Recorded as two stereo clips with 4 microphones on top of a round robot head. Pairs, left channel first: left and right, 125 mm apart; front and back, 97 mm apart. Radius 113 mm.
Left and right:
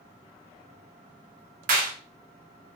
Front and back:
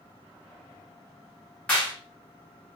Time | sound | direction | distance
1.7 | a clap | 80° right | 0.7 m